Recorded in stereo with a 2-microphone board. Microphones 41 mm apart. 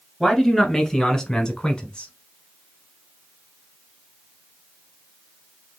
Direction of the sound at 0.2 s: 5° left (ahead or behind).